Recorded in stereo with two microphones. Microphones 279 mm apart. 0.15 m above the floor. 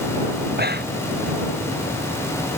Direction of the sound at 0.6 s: 35° right (ahead or behind).